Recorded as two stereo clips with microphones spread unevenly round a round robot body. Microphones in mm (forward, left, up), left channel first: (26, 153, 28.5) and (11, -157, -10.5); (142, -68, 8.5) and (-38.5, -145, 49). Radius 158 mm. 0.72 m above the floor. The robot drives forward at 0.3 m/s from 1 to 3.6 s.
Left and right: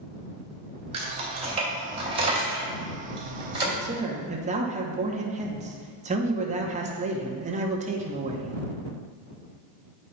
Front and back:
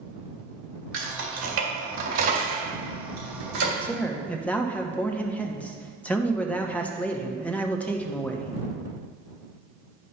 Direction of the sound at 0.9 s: 165° right.